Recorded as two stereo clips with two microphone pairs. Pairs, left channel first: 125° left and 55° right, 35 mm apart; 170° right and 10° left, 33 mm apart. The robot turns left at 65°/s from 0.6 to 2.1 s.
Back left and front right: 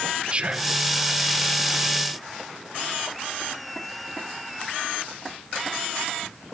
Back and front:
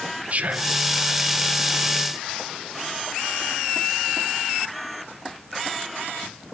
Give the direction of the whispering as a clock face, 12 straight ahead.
12 o'clock.